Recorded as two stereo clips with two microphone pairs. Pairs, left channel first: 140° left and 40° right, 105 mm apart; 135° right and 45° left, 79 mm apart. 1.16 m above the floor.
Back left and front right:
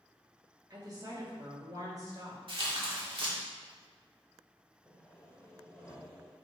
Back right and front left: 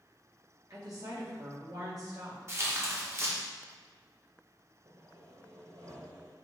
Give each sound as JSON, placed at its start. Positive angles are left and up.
{"t": 0.7, "sound": "a woman speaking", "azimuth_deg": 10, "distance_m": 2.0}
{"t": 2.5, "sound": "tearing paper", "azimuth_deg": -5, "distance_m": 1.5}
{"t": 4.8, "sound": "sawing", "azimuth_deg": 60, "distance_m": 1.8}